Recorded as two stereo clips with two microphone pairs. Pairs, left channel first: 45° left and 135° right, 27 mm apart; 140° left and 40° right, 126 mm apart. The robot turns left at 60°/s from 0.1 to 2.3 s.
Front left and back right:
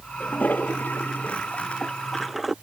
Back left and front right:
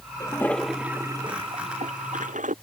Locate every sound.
0.2 s a toilet flushing: 80° left; by 2.5 s 50° right